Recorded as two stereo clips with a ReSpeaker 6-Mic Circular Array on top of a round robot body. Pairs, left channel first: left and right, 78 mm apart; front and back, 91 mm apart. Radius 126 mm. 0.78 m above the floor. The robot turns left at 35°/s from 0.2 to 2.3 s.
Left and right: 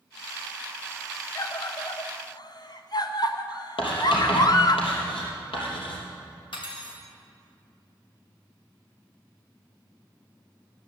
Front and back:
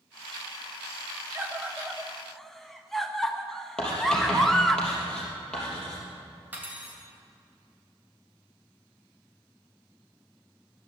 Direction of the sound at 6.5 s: 110° left.